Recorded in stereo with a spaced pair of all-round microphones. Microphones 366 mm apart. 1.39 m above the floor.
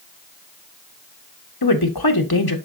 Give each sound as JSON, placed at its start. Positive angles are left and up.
{"t": 1.6, "sound": "a woman speaking", "side_deg": 80, "distance_m": 1.2}